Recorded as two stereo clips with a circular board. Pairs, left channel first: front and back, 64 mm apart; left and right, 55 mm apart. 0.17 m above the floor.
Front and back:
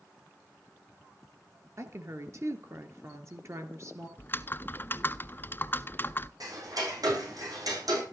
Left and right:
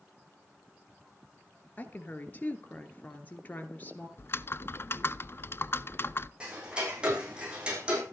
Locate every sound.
1.8 s a woman speaking: 145° left, 2.5 m
4.2 s typing on a keyboard: 55° left, 0.6 m
6.4 s ticking: 160° right, 7 m